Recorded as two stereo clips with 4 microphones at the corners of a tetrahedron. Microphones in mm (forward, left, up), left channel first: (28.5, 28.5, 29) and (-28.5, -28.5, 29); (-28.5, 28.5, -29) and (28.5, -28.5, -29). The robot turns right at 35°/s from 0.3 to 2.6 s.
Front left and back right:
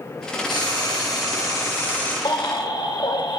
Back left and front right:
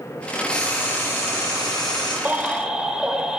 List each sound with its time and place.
0.5 s frying: 55° left, 7.5 m; by 2.1 s 115° left, 7.5 m
2.2 s a baby crying: 25° left, 1.4 m; by 3.4 s 35° left, 1.4 m